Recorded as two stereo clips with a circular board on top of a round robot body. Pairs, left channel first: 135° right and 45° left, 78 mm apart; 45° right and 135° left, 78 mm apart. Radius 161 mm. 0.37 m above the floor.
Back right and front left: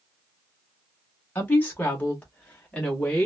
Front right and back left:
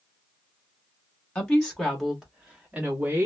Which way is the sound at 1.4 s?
100° right.